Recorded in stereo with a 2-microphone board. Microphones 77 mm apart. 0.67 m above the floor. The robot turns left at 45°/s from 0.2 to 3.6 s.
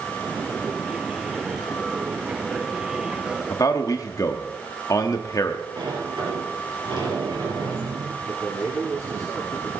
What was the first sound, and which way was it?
A man speaking, 50° left (ahead or behind).